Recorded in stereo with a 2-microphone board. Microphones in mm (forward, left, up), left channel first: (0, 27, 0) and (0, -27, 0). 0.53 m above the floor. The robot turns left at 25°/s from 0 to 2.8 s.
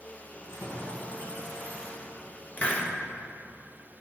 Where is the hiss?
30° left (ahead or behind), 1.1 m; by 2.9 s 25° left (ahead or behind), 1.1 m.